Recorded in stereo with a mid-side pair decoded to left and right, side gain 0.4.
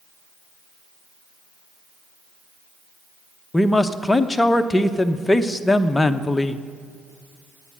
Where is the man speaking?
15° left, 0.9 m.